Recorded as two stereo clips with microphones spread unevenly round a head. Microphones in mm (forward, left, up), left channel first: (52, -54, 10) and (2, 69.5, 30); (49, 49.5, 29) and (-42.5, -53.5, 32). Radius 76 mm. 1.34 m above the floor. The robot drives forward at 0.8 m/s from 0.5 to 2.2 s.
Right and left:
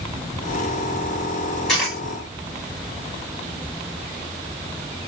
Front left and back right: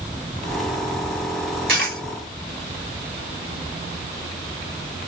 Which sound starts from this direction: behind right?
A dropped coin, at 1.7 s.